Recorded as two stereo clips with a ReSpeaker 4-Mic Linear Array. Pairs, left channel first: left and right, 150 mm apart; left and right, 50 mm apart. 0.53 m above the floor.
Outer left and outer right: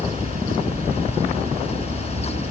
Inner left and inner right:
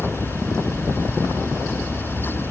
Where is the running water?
65° right (ahead or behind).